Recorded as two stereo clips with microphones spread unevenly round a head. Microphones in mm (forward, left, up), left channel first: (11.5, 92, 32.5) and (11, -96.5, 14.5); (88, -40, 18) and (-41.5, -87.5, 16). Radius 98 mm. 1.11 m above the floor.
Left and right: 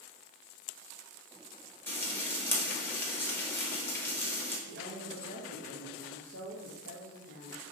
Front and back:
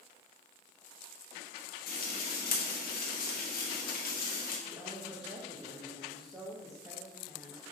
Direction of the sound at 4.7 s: 100° right.